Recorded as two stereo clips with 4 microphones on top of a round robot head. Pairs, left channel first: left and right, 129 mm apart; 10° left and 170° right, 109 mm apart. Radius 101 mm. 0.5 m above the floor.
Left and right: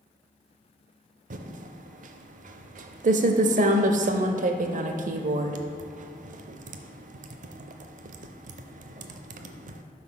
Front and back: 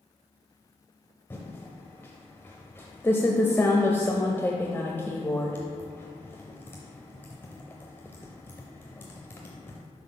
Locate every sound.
1.3 s typing on a keyboard: 65° right, 0.5 m